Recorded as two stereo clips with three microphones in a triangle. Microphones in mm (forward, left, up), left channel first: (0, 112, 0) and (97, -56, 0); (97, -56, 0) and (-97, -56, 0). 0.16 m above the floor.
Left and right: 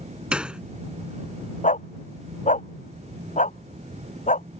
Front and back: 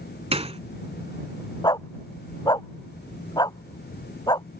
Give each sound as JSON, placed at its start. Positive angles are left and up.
{"t": 0.3, "sound": "a gunshot", "azimuth_deg": -140}
{"t": 1.6, "sound": "a dog barking", "azimuth_deg": 70}